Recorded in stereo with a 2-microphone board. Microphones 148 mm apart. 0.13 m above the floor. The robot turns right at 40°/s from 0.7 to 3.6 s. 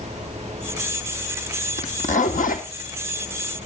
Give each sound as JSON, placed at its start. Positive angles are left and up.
{"t": 1.8, "sound": "a zipper", "azimuth_deg": 50, "distance_m": 2.5}